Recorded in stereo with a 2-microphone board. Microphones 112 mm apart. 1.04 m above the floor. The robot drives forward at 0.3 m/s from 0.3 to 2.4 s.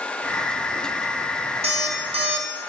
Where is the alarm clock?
65° right (ahead or behind), 1.1 m; by 2.5 s 60° right (ahead or behind), 1.1 m.